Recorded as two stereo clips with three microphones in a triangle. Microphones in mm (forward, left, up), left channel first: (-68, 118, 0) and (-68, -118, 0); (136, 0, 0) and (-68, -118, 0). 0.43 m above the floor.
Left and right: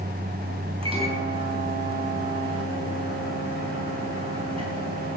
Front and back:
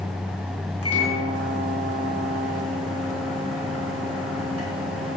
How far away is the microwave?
About 3 m.